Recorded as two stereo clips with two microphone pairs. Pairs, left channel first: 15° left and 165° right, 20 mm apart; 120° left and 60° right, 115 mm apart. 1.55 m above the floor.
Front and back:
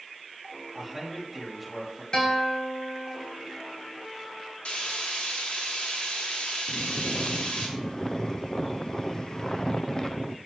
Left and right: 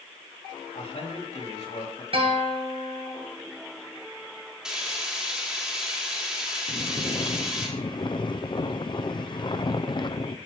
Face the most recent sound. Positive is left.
turn(degrees=70)